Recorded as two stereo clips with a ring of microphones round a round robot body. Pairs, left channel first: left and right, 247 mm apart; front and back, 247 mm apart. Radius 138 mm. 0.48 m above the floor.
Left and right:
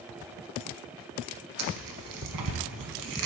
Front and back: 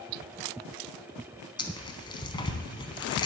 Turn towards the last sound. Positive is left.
turn(degrees=-70)